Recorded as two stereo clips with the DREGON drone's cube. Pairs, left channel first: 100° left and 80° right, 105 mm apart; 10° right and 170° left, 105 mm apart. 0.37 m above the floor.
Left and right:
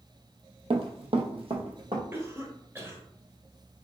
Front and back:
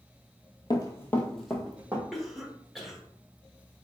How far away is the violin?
I don't hear a violin.